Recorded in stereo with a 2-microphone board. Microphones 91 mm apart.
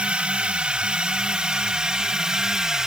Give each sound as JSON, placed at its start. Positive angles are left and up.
{"t": 0.0, "sound": "a drone", "side_deg": -10}